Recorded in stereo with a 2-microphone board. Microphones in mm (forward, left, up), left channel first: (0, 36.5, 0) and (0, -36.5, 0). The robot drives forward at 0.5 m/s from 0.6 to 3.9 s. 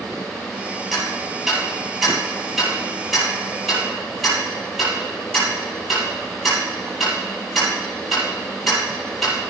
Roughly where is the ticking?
Centre.